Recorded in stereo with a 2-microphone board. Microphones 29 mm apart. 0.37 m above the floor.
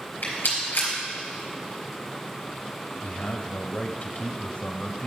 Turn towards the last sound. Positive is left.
turn(degrees=50)  # may be behind; listen again after turning